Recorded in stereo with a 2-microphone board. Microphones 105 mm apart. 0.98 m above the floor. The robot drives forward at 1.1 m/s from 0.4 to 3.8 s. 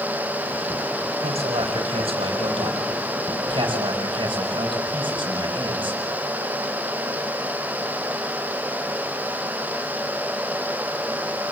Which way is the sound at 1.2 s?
80° right.